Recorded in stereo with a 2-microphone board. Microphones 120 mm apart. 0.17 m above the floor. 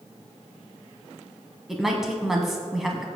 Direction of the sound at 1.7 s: Centre (ahead or behind).